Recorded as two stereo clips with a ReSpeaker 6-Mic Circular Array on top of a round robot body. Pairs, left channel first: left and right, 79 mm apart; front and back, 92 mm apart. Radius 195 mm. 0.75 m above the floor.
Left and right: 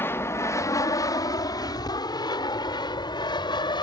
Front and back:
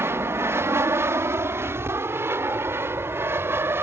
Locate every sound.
0.0 s an aircraft: 135° left; by 3.8 s 115° left